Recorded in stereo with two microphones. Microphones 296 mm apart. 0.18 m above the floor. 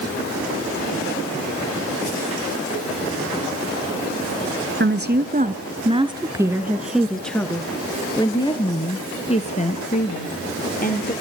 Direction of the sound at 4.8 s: 40° right (ahead or behind).